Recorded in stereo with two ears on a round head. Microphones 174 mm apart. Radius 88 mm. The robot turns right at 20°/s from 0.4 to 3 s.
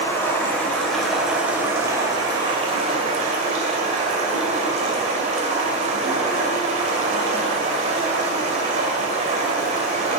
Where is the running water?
165° left, 2.5 m; by 10.2 s 140° right, 2.5 m.